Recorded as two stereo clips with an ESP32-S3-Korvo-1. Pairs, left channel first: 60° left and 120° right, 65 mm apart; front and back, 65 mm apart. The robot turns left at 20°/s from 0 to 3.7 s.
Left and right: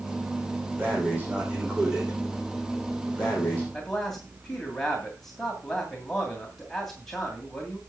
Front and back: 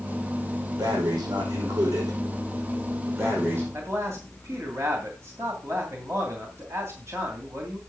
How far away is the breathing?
About 5.5 m.